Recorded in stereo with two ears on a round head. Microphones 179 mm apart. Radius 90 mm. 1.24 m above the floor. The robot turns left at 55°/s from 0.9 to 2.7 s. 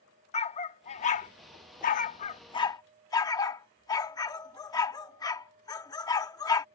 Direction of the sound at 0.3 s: 35° left (ahead or behind).